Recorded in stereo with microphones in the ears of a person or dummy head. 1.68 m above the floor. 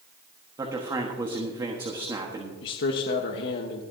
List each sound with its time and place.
0.6 s a man speaking: 20° right (ahead or behind), 1.3 m
2.6 s a man speaking: 60° left (ahead or behind), 1.1 m